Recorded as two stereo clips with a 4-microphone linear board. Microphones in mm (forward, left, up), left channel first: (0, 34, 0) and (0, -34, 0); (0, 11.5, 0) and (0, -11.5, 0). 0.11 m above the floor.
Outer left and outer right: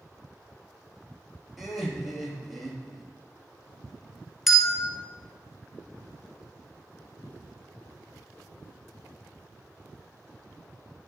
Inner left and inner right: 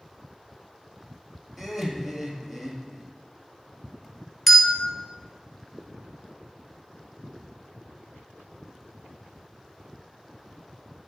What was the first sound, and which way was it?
Laughter, 5° right (ahead or behind).